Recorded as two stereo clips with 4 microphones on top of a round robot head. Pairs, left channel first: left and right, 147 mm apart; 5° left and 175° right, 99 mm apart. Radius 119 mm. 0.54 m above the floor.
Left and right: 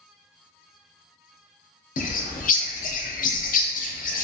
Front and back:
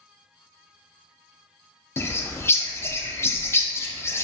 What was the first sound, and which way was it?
A bird, 70° left.